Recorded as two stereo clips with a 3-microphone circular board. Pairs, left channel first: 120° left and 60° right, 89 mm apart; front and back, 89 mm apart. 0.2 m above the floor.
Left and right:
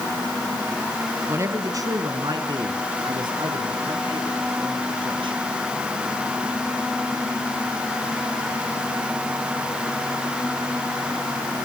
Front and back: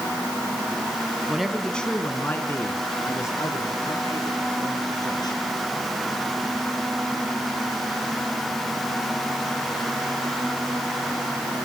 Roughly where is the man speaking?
Right.